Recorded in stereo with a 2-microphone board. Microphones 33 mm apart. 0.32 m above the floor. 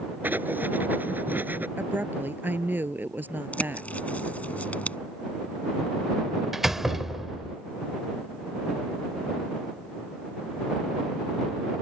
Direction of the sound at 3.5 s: 50° left (ahead or behind).